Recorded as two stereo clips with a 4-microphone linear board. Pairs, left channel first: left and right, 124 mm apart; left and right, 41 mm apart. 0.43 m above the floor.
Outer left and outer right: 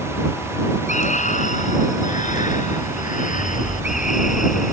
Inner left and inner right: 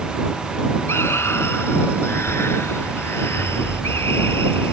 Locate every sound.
0.9 s a scream: 75° left (ahead or behind); by 4.7 s 80° left